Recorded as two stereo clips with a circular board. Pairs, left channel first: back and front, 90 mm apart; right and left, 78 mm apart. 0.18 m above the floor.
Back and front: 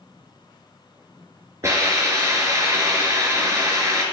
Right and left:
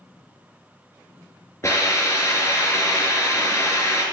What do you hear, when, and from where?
1.6 s a hiss: 45° right, 3.5 m